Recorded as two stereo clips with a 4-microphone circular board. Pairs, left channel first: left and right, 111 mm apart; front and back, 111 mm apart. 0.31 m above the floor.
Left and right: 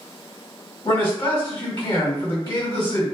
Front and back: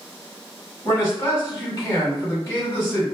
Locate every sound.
0.8 s a man speaking: 55° left, 1.9 m